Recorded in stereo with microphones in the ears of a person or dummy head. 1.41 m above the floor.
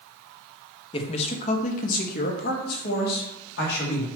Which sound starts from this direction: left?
A man speaking, at 0.9 s.